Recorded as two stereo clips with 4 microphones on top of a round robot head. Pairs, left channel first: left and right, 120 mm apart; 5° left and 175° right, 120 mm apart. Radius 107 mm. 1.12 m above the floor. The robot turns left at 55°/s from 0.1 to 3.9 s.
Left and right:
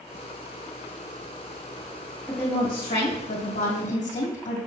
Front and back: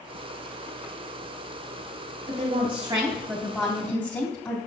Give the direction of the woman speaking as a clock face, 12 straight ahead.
7 o'clock.